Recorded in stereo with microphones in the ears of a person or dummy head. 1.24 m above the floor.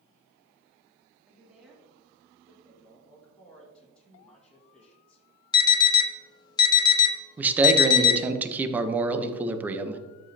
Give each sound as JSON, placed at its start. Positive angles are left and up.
{"t": 1.3, "sound": "a woman speaking", "side_deg": -5, "distance_m": 2.5}
{"t": 2.6, "sound": "a man speaking", "side_deg": 5, "distance_m": 2.0}
{"t": 5.5, "sound": "an alarm", "side_deg": 20, "distance_m": 1.2}
{"t": 7.4, "sound": "a man speaking", "side_deg": -15, "distance_m": 0.9}